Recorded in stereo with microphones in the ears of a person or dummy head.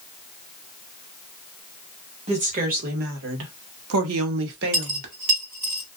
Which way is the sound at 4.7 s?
30° right (ahead or behind).